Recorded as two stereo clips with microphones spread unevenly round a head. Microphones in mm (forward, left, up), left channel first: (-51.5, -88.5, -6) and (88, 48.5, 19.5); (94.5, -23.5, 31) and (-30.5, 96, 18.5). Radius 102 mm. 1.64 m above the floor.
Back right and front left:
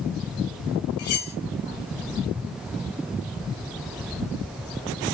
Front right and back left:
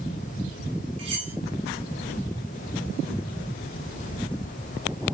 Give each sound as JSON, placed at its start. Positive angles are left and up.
{"t": 1.0, "sound": "cutlery clinking", "azimuth_deg": -160, "distance_m": 3.0}